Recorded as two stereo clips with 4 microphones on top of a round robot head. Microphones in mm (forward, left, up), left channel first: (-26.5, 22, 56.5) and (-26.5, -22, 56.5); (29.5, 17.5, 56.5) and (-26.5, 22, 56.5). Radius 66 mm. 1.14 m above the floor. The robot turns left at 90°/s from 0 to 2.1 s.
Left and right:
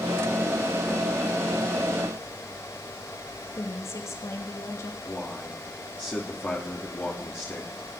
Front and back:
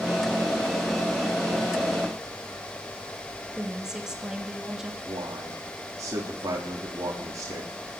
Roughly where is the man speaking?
Behind left.